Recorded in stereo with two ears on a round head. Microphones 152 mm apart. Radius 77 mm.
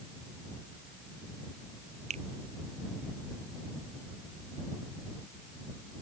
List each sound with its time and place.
2.1 s a finger snap: 45° right (ahead or behind)